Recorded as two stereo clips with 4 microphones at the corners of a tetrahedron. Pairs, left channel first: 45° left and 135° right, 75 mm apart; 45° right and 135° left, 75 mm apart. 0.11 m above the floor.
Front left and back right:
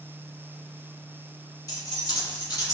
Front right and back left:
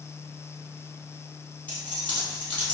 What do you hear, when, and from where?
1.7 s keys jangling: 20° left, 1.9 m